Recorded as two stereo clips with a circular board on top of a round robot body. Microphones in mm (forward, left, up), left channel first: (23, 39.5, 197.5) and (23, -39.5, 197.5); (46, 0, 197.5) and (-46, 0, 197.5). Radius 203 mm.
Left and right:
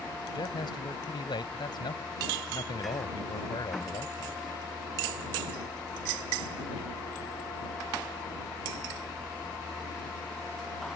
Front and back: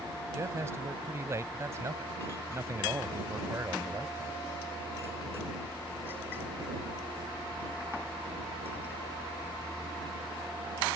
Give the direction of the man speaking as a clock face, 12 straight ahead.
8 o'clock.